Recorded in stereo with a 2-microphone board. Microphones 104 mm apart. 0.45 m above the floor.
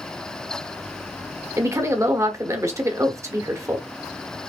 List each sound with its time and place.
1.6 s a woman speaking: 30° right (ahead or behind), 1.1 m